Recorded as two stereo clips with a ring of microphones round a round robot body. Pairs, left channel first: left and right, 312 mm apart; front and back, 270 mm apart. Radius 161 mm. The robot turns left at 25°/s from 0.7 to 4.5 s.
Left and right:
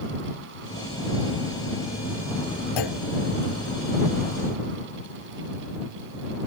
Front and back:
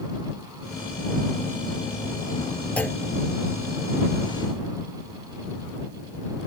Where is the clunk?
85° left; by 3.0 s 80° left.